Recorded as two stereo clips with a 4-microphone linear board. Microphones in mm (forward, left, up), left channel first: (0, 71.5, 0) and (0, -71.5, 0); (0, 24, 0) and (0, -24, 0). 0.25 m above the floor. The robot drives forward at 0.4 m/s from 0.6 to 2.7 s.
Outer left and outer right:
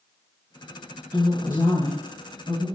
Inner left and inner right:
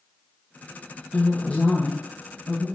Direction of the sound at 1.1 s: 20° left (ahead or behind).